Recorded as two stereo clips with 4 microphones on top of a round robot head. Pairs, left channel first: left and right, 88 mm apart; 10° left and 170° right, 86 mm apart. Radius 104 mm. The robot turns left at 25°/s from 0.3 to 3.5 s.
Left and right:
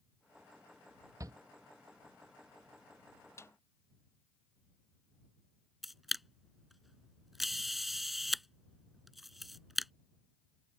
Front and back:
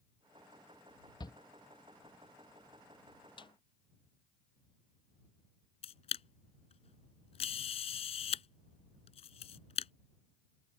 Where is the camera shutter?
Straight ahead.